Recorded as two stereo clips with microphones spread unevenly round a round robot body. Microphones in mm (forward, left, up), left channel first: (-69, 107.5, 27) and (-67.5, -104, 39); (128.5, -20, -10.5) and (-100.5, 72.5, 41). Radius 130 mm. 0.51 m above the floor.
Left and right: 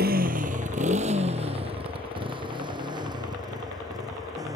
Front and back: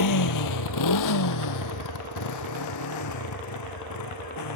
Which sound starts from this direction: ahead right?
A motorcycle, at 0.0 s.